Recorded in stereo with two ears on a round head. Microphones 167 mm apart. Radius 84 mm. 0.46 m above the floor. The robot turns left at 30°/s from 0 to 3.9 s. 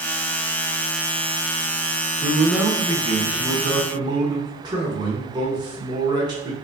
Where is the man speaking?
5° right (ahead or behind), 0.9 m; by 6.5 s 25° right (ahead or behind), 0.9 m.